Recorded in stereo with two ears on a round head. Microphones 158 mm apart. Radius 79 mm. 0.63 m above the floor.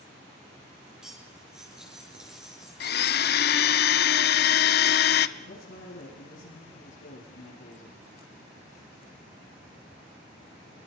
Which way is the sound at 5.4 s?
75° left (ahead or behind).